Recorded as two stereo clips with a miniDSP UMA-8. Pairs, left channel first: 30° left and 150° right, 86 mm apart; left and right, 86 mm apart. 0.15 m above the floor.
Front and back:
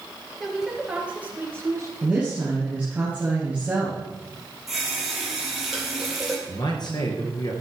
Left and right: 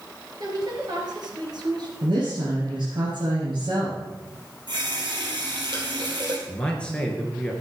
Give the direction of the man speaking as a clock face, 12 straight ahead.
12 o'clock.